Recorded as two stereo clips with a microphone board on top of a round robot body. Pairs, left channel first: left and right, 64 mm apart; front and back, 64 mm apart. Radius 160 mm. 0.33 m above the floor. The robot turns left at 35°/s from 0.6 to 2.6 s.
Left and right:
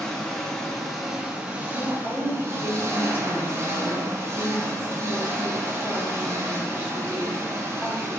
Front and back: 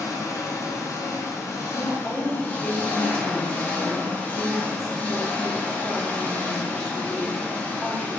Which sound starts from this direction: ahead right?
A woman speaking, at 1.7 s.